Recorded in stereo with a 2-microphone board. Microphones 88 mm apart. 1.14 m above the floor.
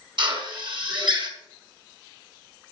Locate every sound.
0.2 s a drill: 65° right (ahead or behind), 5.5 m